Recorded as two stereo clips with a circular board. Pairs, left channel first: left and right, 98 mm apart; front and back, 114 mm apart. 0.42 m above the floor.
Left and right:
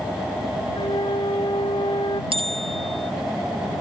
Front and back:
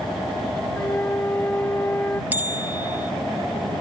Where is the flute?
70° left.